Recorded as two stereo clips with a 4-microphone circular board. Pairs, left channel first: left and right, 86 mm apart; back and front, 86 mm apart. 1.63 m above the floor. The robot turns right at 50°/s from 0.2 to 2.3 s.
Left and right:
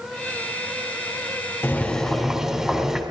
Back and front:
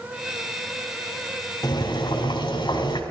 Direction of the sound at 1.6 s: 155° left.